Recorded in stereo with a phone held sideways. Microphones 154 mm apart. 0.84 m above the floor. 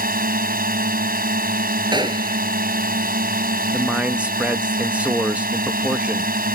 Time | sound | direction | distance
0.0 | a drone | 75° right (ahead or behind) | ?
1.9 | a gunshot | 30° right (ahead or behind) | ?
3.7 | a man speaking | 10° right (ahead or behind) | ?